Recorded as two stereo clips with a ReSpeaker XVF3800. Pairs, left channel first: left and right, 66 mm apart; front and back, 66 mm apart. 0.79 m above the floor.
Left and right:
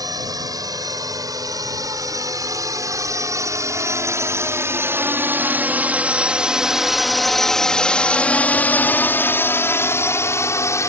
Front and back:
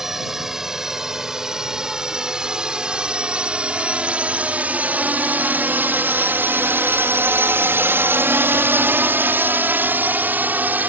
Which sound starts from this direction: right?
A drone, at 0.0 s.